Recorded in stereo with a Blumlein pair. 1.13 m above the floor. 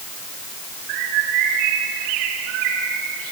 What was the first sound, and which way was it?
A bird, 40° right.